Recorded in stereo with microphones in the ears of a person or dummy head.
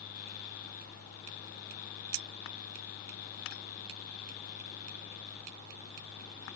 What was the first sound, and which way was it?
Only background noise.